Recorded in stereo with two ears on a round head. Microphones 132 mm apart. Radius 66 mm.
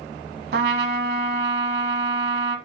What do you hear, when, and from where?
0.5 s a trumpet: 75° right (ahead or behind), 0.9 m